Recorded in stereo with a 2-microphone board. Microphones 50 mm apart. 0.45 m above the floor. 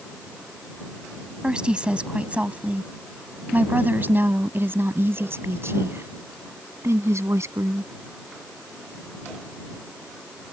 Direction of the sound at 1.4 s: 15° right (ahead or behind).